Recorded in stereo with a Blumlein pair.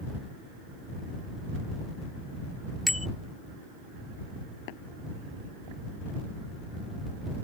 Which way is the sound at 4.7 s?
50° left.